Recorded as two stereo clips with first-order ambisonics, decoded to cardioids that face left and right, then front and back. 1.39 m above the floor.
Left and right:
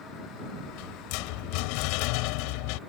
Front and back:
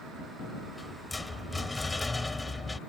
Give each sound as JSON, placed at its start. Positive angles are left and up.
{"t": 0.6, "sound": "a rattle", "azimuth_deg": 85}